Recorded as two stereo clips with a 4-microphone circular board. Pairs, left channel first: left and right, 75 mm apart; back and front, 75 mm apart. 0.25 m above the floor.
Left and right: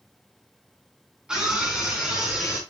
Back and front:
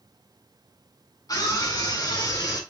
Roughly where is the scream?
Behind.